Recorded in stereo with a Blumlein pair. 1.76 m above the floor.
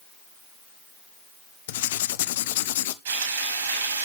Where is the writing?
55° left, 0.7 m.